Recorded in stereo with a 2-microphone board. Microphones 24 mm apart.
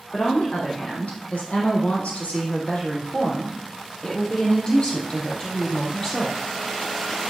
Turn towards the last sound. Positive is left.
turn(degrees=20)  # may be behind; listen again after turning